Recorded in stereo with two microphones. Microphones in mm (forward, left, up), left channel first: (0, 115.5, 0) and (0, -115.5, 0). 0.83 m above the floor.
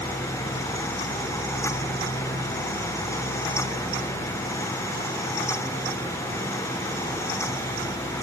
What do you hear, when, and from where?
Only background noise.